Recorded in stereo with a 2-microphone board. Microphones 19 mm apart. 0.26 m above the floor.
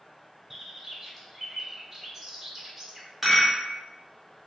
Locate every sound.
0.5 s a bird: 15° right (ahead or behind), 1.0 m
3.2 s a rattle: 5° right (ahead or behind), 1.5 m